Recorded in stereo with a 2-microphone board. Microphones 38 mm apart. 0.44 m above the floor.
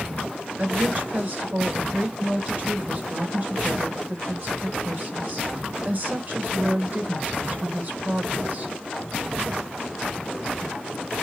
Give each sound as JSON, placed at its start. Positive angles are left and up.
{"t": 0.6, "sound": "a woman speaking", "side_deg": -45, "distance_m": 3.0}